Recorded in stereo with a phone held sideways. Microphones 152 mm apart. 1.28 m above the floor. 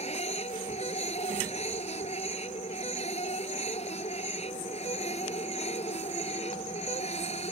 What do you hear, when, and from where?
0.0 s a machine running: 45° left (ahead or behind)